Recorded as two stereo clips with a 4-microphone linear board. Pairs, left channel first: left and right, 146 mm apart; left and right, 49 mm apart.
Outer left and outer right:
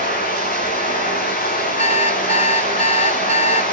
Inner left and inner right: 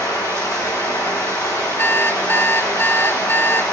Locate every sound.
0.0 s running water: 80° left, 5.5 m
1.8 s an alarm clock: 50° left (ahead or behind), 0.7 m